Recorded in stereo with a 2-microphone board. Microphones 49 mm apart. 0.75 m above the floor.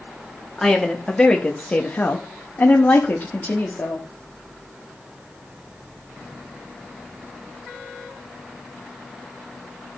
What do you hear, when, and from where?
0.6 s a woman speaking: 5° left (ahead or behind), 1.5 m; by 4.1 s 30° left (ahead or behind), 1.7 m